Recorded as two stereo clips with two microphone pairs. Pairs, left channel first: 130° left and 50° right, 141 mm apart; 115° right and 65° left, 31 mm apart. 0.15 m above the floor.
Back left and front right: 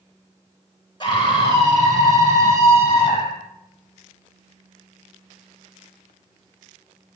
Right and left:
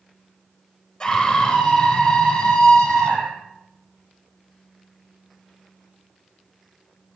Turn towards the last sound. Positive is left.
turn(degrees=-170)